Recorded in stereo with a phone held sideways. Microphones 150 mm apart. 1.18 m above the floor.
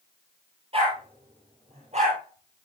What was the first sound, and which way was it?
A dog barking, 40° right (ahead or behind).